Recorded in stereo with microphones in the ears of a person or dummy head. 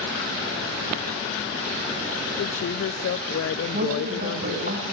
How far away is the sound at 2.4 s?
About 0.6 m.